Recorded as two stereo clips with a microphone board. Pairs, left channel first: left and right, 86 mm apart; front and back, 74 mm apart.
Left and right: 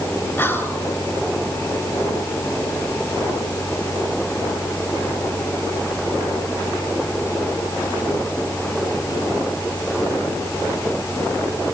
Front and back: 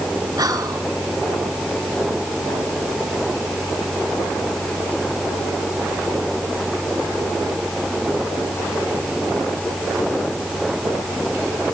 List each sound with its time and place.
0.4 s whispering: 155° left, 4 m